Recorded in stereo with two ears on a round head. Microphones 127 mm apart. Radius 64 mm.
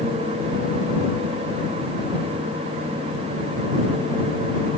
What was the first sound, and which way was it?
Only background noise.